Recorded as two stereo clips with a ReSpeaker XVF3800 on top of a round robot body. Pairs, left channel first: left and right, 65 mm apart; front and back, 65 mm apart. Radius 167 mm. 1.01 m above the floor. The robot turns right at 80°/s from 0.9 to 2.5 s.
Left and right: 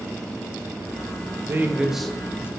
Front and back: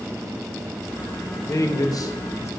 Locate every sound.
1.5 s a man speaking: 40° right, 0.6 m; by 2.5 s 40° left, 0.6 m